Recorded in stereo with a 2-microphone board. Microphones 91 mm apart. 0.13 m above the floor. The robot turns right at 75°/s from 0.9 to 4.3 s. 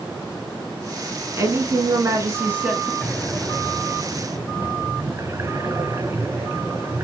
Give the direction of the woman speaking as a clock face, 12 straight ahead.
4 o'clock.